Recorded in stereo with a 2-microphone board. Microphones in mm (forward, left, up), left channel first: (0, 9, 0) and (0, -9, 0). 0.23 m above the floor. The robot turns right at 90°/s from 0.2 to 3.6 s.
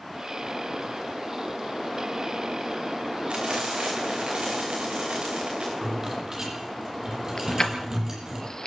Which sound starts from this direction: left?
Keys jangling, at 7.4 s.